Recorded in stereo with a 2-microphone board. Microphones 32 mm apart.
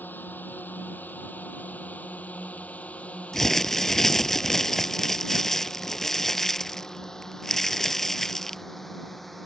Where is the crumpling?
10° left (ahead or behind).